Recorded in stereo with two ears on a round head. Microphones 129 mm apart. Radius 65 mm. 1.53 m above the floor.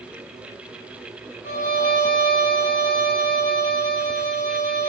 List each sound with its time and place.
1.4 s a violin: 55° left (ahead or behind), 6 m